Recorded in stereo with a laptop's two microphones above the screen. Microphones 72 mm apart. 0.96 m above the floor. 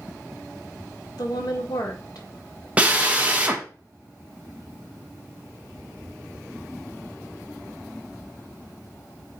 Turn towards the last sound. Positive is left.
turn(degrees=-20)  # may be behind; listen again after turning